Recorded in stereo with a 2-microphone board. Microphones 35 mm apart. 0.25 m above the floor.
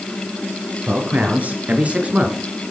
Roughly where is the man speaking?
Right.